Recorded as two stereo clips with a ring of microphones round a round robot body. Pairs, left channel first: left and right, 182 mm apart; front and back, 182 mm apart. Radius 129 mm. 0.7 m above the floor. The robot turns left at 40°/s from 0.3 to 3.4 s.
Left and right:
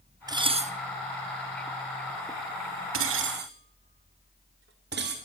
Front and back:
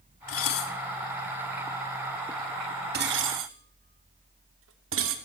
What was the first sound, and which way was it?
Dishes clattering, 20° right.